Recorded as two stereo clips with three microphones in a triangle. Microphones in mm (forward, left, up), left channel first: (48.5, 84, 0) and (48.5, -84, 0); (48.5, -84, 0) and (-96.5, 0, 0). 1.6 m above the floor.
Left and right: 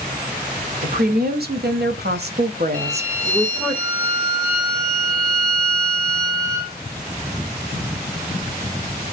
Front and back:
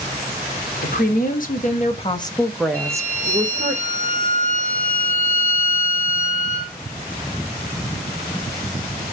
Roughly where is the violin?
Ahead right.